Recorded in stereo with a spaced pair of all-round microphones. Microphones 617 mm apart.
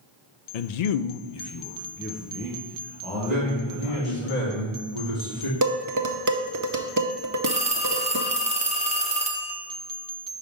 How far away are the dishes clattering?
About 0.6 m.